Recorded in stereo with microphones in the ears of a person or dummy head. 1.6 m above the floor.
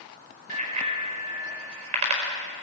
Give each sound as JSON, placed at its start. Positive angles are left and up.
{"t": 0.5, "sound": "a bicycle bell", "side_deg": -45, "distance_m": 5.0}